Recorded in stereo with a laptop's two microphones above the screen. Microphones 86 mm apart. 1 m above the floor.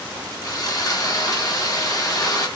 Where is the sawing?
45° left (ahead or behind), 3 m.